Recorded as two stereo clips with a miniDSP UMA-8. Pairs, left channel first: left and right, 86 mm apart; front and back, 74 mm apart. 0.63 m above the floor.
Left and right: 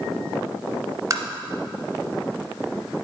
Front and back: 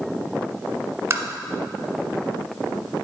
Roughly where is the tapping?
Behind right.